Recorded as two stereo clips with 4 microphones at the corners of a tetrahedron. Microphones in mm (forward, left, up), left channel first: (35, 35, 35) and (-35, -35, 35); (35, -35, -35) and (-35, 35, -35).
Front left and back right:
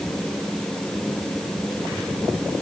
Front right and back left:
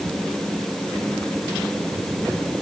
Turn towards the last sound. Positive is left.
No sound to turn to.